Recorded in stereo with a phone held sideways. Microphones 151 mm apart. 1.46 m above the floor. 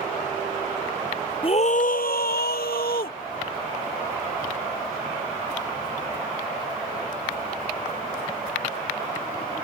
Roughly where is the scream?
Left.